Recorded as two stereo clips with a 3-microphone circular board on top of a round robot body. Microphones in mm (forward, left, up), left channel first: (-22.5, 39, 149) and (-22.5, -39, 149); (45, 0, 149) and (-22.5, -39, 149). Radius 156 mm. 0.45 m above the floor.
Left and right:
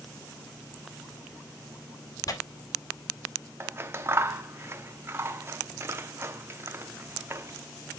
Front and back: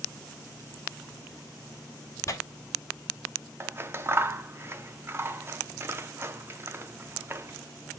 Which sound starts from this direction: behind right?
Scissors, at 3.6 s.